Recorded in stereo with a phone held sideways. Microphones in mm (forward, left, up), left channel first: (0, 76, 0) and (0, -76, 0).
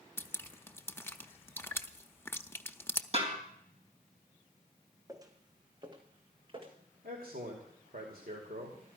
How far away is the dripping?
About 0.7 m.